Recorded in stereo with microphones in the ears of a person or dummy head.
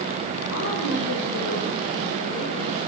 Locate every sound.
0.5 s a woman speaking: 70° left (ahead or behind), 7 m; by 2.8 s 85° left, 8.5 m